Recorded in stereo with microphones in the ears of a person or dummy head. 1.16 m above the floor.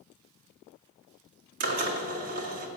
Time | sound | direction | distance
1.6 | a drill | 50° right (ahead or behind) | 1.6 m